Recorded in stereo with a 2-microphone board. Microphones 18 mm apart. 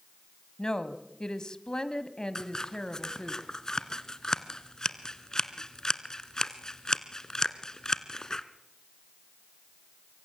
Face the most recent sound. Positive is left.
turn(degrees=40)  # may be behind; listen again after turning